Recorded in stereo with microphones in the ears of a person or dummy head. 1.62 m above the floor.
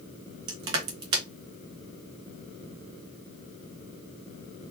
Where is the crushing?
35° right (ahead or behind), 0.9 m.